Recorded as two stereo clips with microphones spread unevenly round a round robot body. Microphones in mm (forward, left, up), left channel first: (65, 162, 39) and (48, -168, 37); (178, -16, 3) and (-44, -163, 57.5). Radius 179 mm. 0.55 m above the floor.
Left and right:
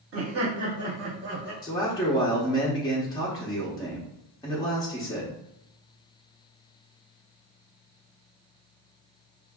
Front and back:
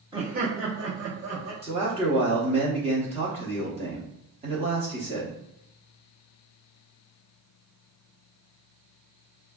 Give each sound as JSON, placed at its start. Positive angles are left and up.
{"t": 0.1, "sound": "laughter", "azimuth_deg": -65, "distance_m": 0.8}
{"t": 1.6, "sound": "a man speaking", "azimuth_deg": 150, "distance_m": 0.7}